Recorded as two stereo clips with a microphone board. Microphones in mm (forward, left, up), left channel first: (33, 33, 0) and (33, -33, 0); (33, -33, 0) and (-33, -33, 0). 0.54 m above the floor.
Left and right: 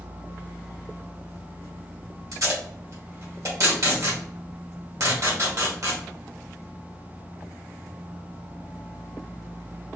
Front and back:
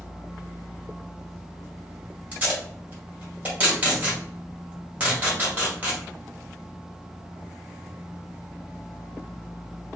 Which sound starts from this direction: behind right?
Tape being pulled, at 2.3 s.